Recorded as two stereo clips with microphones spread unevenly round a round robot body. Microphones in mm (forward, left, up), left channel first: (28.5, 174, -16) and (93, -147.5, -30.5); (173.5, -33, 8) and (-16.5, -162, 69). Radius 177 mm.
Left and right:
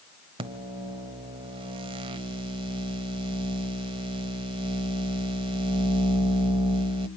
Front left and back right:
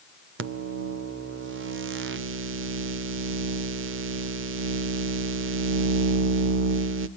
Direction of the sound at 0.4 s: 140° right.